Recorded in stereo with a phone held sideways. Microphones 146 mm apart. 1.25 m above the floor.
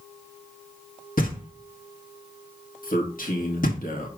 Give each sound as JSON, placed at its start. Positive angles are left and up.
{"t": 1.2, "sound": "knocking", "side_deg": 75, "distance_m": 1.7}
{"t": 2.8, "sound": "a man speaking", "side_deg": 75, "distance_m": 1.7}